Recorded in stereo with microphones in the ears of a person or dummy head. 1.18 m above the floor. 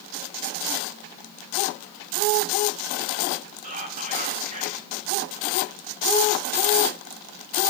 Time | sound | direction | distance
3.6 | whispering | 40° right (ahead or behind) | 1.5 m